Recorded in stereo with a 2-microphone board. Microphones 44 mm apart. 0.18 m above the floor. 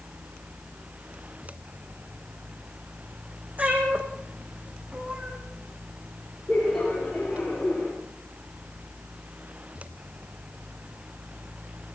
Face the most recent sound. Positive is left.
turn(degrees=0)  # may be behind; listen again after turning